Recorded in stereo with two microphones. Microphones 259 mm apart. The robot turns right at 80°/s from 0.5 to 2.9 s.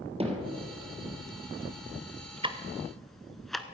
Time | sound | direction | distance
0.2 | hammering | 20° right (ahead or behind) | 1.9 m
2.4 | ticking | 20° right (ahead or behind) | 0.7 m